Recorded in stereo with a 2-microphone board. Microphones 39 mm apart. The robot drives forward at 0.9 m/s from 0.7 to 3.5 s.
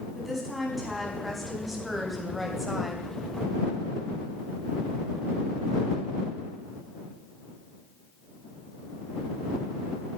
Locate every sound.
0.1 s a woman speaking: 5° right (ahead or behind), 4.5 m